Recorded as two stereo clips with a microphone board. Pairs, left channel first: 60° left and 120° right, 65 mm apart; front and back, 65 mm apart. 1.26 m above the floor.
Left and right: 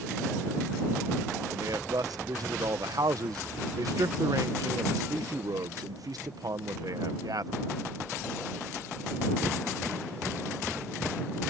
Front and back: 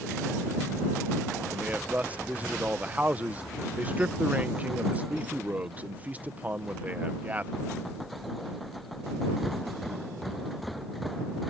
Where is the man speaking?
115° right.